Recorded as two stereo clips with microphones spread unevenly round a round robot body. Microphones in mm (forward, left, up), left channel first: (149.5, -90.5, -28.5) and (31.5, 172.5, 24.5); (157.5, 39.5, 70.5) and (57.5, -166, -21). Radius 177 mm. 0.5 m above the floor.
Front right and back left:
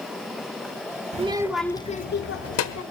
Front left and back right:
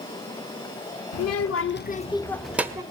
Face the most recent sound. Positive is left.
turn(degrees=-45)